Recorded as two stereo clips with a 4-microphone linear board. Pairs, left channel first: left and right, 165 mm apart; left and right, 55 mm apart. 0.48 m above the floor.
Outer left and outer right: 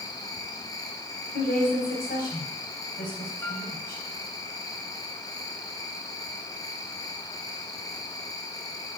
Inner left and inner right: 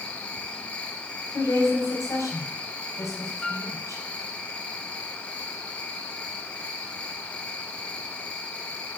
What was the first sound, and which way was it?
An insect, 20° left (ahead or behind).